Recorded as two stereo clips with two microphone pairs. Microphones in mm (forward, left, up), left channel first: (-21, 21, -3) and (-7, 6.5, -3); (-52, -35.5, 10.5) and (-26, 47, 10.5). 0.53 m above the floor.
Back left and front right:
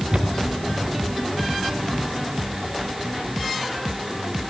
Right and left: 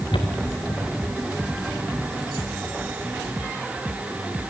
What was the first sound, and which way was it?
Footsteps, 90° right.